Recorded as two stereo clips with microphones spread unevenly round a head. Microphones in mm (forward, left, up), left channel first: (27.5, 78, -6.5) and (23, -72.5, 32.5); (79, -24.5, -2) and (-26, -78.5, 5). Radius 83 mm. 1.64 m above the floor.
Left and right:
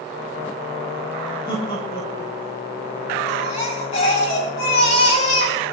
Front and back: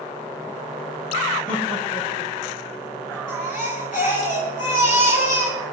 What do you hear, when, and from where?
1.5 s laughter: 25° left, 6.5 m; by 3.2 s 35° left, 6.5 m
3.3 s a baby crying: 40° left, 7.5 m